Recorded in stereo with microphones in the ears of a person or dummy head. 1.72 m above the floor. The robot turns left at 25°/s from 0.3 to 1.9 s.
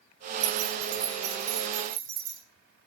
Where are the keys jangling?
55° right (ahead or behind), 3.5 m; by 2.4 s 80° right, 3.5 m.